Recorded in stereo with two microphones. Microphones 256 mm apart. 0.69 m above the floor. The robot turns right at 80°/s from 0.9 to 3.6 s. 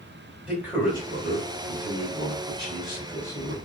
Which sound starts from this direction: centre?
A man speaking, at 0.5 s.